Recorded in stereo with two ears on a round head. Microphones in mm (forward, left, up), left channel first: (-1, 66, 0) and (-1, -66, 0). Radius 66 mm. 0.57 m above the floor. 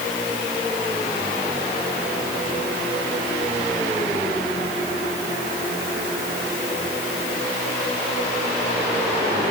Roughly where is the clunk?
No clunk in this recording.